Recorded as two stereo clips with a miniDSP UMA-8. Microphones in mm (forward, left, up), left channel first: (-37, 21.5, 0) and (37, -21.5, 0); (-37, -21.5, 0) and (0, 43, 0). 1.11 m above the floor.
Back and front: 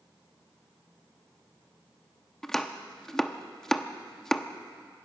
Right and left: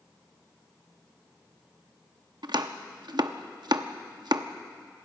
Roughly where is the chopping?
Ahead left.